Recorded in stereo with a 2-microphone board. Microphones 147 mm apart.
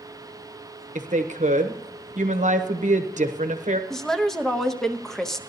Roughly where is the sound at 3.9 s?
Centre.